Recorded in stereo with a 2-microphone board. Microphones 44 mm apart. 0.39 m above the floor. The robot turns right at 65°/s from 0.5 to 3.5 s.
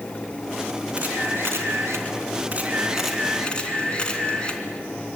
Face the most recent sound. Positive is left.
turn(degrees=25)